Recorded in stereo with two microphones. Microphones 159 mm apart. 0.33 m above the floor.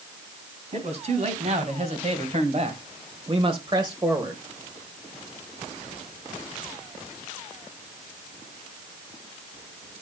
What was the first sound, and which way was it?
A man speaking, 45° right (ahead or behind).